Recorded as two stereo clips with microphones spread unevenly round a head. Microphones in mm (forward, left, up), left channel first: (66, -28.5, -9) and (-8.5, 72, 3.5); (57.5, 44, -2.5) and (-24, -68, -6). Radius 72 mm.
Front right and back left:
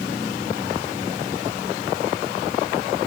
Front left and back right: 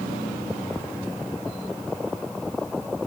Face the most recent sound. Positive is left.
No sound to turn to.